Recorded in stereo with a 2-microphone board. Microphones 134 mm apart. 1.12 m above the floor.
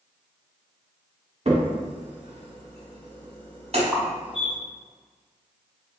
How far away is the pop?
About 0.5 m.